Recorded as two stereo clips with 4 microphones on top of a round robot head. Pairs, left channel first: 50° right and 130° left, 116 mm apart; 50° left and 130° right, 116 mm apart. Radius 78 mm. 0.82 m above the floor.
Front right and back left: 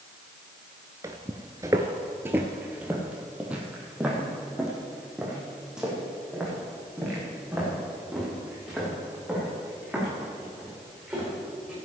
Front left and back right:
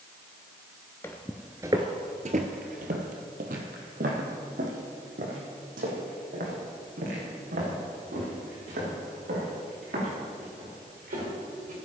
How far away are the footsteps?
About 0.8 m.